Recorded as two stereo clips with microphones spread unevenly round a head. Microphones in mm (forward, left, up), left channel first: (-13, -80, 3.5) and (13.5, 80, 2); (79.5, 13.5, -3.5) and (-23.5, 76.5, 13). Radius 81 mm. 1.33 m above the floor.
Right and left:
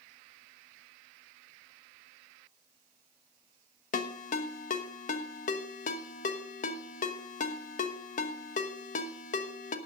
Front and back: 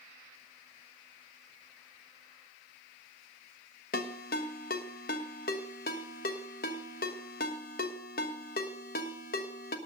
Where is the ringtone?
55° right, 1.2 m.